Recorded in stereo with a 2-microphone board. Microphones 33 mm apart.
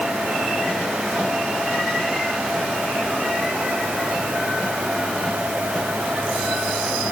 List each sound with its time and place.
Only background noise.